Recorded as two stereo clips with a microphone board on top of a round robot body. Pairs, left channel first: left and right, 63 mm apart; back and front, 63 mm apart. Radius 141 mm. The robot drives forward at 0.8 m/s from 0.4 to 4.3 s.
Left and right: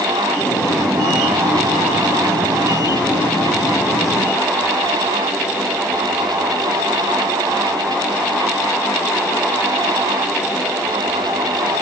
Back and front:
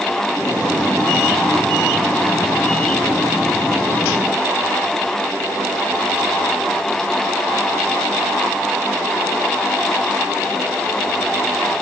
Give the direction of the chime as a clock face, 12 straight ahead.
I don't hear a chime.